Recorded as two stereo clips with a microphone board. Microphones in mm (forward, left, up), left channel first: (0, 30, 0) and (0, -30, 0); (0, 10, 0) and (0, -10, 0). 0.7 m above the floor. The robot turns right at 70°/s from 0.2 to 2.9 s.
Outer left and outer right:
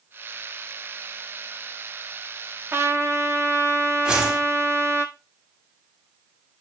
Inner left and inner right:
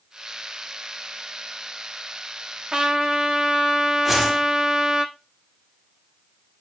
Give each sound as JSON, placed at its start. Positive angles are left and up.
{"t": 2.7, "sound": "a trumpet", "side_deg": -40, "distance_m": 1.0}
{"t": 4.0, "sound": "a whoosh", "side_deg": -20, "distance_m": 2.5}